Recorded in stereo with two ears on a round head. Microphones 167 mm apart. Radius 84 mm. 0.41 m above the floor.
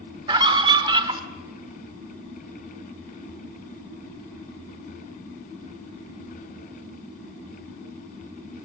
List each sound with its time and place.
0.3 s a scream: 25° right (ahead or behind), 1.3 m